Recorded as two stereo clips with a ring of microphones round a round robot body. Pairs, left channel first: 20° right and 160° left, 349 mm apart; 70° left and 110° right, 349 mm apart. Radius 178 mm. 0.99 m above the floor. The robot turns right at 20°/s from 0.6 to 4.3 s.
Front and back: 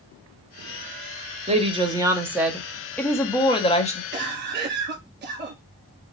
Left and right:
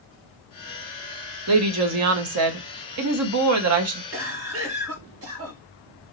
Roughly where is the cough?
Behind right.